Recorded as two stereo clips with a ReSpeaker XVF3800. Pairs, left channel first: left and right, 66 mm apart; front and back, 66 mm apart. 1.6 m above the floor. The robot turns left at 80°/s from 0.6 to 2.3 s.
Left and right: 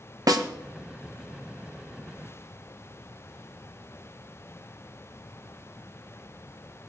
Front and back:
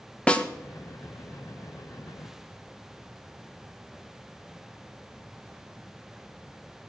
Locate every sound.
0.3 s a snare drum: 75° right, 1.1 m